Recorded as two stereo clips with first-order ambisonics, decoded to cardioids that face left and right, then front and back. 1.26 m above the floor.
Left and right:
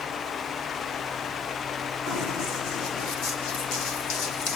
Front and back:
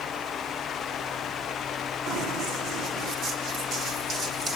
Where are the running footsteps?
125° left, 5 m; by 4.6 s 100° left, 3.5 m.